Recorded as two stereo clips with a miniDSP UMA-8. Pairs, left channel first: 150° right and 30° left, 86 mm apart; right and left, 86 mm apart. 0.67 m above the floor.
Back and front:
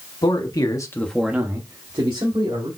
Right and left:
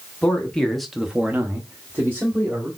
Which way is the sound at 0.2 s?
165° right.